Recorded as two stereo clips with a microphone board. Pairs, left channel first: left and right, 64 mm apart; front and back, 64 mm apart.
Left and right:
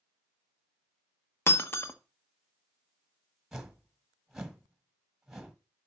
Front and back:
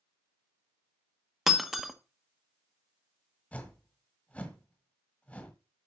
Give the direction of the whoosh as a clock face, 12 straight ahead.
12 o'clock.